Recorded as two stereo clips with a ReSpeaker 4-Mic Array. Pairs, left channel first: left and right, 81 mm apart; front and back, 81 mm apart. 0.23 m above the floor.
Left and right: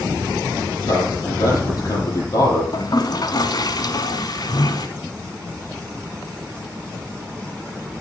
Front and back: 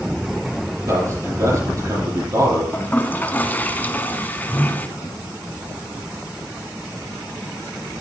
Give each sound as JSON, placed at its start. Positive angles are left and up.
{"t": 0.9, "sound": "a man speaking", "azimuth_deg": 135, "distance_m": 7.0}
{"t": 2.7, "sound": "a toilet flushing", "azimuth_deg": 65, "distance_m": 1.0}